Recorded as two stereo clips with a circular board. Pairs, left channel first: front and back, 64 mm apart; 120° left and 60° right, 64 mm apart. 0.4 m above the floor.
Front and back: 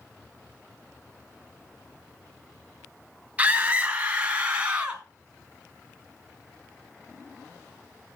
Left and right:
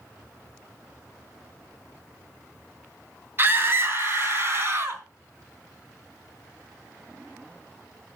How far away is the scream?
About 2 m.